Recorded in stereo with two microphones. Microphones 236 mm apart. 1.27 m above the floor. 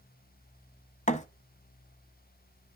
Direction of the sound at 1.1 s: 30° left (ahead or behind).